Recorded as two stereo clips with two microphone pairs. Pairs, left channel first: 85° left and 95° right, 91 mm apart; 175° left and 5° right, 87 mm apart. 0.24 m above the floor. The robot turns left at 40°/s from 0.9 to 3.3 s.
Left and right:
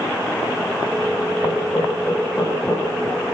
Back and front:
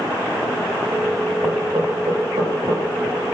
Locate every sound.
1.4 s knocking: 45° left, 9.5 m; by 2.9 s 15° right, 9.5 m